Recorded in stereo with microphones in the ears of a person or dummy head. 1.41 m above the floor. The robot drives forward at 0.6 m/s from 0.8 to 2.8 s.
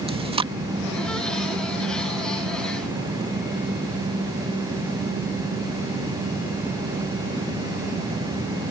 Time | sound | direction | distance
0.1 | chewing | 25° right (ahead or behind) | ?